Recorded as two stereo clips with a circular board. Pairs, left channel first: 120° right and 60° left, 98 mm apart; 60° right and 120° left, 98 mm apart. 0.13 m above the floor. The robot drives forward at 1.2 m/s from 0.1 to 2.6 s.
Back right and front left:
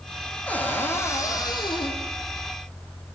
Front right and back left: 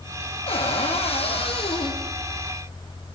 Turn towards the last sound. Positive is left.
turn(degrees=-115)